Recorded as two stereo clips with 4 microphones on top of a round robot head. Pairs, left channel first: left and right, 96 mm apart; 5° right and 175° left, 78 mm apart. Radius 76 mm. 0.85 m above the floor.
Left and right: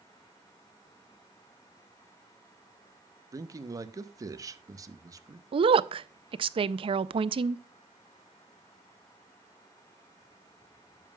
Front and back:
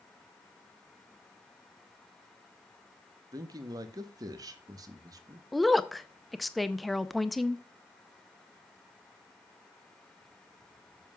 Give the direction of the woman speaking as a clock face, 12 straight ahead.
3 o'clock.